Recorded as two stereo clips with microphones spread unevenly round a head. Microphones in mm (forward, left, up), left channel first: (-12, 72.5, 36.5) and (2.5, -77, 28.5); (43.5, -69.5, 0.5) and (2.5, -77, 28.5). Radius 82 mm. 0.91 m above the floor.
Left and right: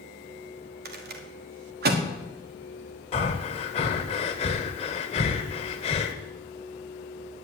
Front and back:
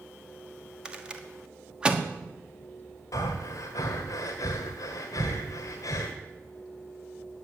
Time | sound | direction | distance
0.8 | a rattle | 90° right | 1.6 m
3.1 | breathing | 45° left | 1.2 m